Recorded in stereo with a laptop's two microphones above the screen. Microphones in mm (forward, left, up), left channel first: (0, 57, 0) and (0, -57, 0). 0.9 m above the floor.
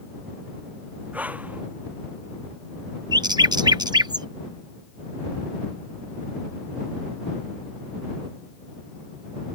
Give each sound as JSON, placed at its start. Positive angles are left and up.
{"t": 1.1, "sound": "breathing", "side_deg": -15}
{"t": 3.1, "sound": "a bird", "side_deg": -35}